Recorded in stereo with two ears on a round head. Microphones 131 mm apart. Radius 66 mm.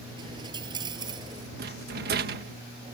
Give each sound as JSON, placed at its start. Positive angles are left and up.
{"t": 0.2, "sound": "a dropped coin", "side_deg": -30}
{"t": 1.6, "sound": "a rattle", "side_deg": -70}